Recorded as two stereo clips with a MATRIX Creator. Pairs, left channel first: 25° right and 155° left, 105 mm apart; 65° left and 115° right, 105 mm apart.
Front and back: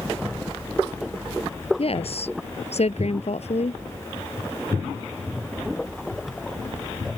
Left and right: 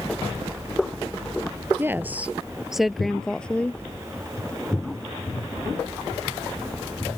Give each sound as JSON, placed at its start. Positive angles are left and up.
{"t": 1.8, "sound": "a woman speaking", "azimuth_deg": -45}